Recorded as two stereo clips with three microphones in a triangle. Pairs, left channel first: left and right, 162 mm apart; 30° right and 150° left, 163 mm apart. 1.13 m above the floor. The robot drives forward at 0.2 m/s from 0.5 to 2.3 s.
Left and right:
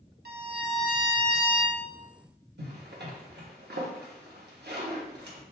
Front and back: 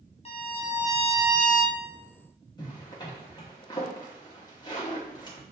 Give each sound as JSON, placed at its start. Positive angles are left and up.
{"t": 0.2, "sound": "a violin", "azimuth_deg": -80, "distance_m": 0.9}
{"t": 2.6, "sound": "a zipper", "azimuth_deg": -95, "distance_m": 1.2}